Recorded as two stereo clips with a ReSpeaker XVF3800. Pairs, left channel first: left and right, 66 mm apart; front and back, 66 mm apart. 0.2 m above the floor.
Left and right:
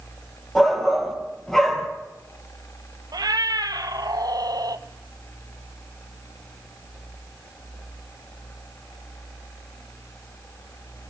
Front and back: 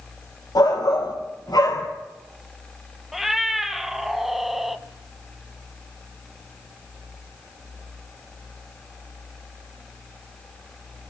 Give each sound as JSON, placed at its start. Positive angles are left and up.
{"t": 0.6, "sound": "a shout", "azimuth_deg": 10, "distance_m": 4.0}
{"t": 3.1, "sound": "a cat meowing", "azimuth_deg": -95, "distance_m": 1.2}